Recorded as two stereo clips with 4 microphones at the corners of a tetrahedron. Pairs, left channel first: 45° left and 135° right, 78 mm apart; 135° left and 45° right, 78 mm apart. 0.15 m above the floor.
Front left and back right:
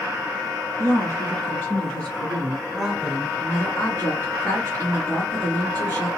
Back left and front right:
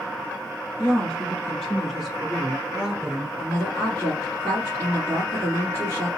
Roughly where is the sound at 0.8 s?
Left.